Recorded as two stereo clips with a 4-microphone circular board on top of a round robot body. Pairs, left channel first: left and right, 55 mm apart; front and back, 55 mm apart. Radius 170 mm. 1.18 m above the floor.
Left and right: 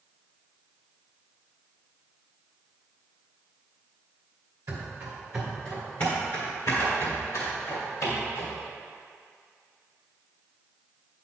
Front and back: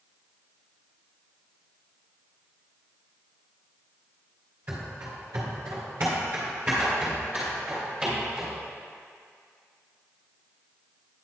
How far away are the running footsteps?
About 1.7 m.